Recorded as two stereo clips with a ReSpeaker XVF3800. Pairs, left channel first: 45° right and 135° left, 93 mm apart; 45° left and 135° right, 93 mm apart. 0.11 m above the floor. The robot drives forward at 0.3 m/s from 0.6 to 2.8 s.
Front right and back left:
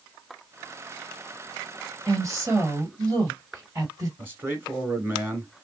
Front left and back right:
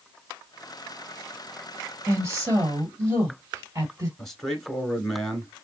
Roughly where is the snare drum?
I don't hear a snare drum.